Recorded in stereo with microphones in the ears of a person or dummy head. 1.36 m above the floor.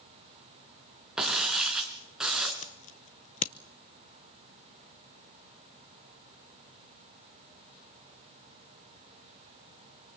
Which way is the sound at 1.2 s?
Centre (ahead or behind).